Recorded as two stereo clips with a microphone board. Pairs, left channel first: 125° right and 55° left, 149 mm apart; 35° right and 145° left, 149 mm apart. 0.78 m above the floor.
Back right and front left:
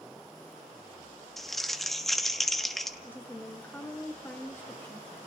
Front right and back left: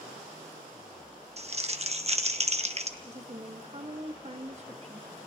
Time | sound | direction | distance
1.4 | crumpling | 150° left | 1.1 m
3.0 | a woman speaking | 165° left | 1.3 m